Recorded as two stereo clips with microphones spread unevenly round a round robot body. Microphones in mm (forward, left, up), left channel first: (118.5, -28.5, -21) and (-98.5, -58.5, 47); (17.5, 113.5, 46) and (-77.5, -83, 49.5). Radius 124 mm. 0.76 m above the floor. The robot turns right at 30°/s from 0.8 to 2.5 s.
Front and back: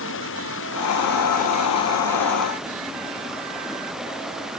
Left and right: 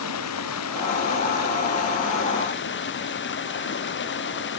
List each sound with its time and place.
0.0 s running water: 50° left; by 4.6 s 100° left